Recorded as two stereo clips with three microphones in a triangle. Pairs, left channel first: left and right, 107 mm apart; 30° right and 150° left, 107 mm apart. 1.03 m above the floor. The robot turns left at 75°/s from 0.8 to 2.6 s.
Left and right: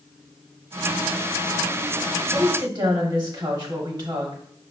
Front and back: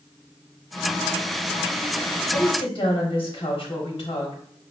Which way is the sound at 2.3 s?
30° right.